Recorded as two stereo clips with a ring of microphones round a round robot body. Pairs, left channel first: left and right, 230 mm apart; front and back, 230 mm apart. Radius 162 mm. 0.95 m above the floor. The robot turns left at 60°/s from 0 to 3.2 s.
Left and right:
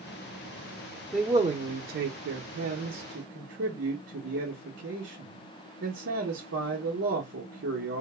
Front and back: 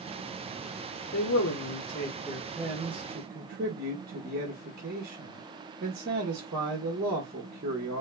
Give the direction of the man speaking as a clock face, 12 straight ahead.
12 o'clock.